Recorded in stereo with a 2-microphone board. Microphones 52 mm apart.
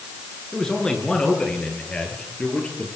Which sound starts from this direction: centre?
A man speaking, at 0.5 s.